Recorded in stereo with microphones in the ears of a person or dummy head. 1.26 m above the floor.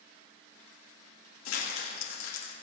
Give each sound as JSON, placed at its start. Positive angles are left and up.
{"t": 1.4, "sound": "crumpling", "side_deg": 80, "distance_m": 1.9}